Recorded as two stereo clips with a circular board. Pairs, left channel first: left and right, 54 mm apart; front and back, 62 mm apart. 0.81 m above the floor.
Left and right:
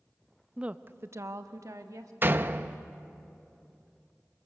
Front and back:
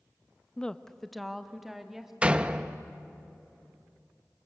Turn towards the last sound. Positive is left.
turn(degrees=-115)